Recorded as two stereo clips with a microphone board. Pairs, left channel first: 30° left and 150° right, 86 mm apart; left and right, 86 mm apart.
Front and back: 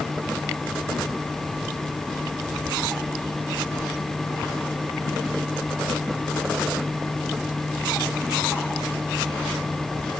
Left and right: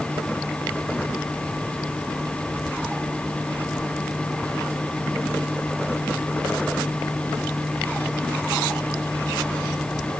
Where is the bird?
I don't hear a bird.